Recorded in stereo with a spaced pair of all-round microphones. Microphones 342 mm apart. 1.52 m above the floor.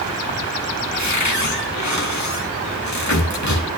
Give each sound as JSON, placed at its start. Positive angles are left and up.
{"t": 0.9, "sound": "a cupboard door", "side_deg": 55, "distance_m": 2.5}